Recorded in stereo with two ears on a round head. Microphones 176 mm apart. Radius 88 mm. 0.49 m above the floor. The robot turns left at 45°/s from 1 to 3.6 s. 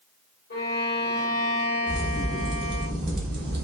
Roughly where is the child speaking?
No child speaking in this recording.